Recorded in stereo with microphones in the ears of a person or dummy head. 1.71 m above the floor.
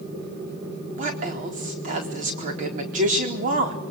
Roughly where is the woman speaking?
Right.